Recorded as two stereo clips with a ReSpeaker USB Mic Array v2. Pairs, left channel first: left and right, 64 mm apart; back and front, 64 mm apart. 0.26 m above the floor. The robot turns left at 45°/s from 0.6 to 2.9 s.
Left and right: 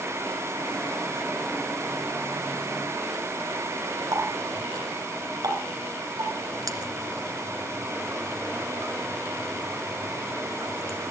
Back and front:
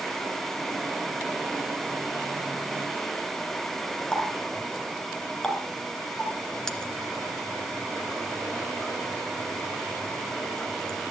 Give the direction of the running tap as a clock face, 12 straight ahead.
3 o'clock.